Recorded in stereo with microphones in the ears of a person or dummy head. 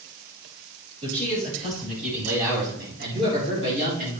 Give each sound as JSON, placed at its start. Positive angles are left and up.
{"t": 1.0, "sound": "a man speaking", "side_deg": -35, "distance_m": 5.0}